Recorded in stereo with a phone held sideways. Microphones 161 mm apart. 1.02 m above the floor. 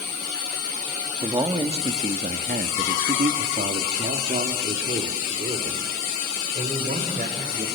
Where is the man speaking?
25° right (ahead or behind), 2 m; by 7.7 s 60° right (ahead or behind), 5 m.